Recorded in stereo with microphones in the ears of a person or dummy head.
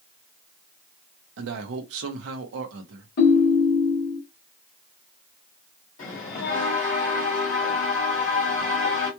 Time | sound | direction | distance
1.4 | a man speaking | 75° right (ahead or behind) | 1.0 m
3.2 | a ringtone | 45° left (ahead or behind) | 1.1 m
6.0 | a bell | 45° left (ahead or behind) | 2 m